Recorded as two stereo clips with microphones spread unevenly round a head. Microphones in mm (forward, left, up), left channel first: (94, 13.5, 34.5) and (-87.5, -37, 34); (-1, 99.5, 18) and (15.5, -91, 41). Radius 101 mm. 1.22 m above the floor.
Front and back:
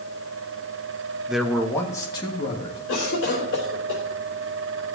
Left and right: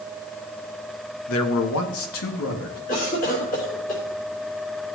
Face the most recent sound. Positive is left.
turn(degrees=45)